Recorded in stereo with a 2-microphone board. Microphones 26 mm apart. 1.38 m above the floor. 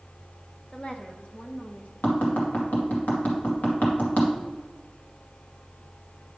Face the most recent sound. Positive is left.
turn(degrees=70)  # may be behind; listen again after turning